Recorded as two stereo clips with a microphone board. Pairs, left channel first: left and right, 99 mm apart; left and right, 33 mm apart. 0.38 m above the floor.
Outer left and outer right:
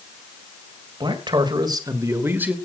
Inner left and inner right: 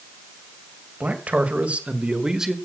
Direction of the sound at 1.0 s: 55° right (ahead or behind).